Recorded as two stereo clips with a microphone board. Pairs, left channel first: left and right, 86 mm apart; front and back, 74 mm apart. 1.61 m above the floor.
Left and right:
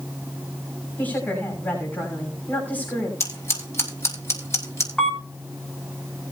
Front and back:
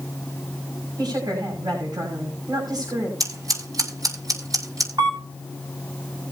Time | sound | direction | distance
1.0 | a woman speaking | 160° left | 6 m
3.2 | scissors | 145° left | 5 m
5.0 | a camera shutter | 175° left | 5.5 m